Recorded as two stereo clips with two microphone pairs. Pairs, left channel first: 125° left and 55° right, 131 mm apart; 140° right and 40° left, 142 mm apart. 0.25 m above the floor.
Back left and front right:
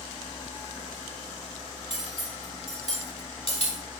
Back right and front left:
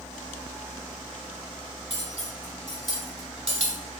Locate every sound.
1.9 s cutlery clinking: 85° left, 1.7 m